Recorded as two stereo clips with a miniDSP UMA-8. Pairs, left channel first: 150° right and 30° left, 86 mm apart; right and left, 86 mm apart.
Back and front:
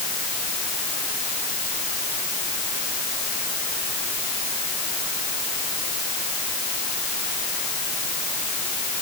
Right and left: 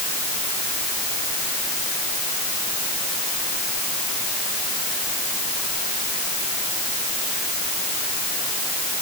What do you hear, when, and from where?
Only background noise.